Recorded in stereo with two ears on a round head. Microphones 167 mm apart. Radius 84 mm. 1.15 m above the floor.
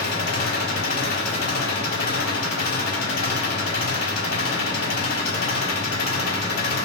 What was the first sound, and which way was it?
An engine running, 60° left (ahead or behind).